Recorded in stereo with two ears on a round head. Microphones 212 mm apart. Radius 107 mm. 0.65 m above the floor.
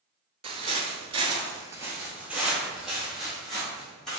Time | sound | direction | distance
0.4 | footsteps | 25° right (ahead or behind) | 0.7 m